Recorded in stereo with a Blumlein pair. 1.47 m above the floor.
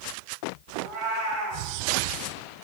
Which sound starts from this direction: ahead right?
A cat meowing, at 0.8 s.